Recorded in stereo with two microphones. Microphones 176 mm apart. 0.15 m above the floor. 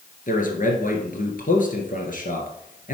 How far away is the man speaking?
About 2 m.